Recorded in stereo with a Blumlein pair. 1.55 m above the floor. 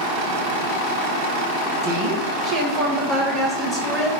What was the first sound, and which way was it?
A woman speaking, 45° right.